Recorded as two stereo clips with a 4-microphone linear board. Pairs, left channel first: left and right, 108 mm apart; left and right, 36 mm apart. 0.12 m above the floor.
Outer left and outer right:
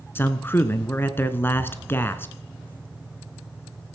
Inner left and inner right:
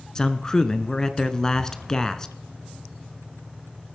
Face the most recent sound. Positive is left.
turn(degrees=20)  # may be behind; listen again after turning